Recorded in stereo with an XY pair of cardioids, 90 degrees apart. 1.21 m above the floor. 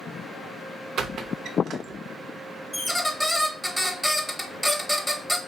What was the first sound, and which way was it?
A squeak, 70° right.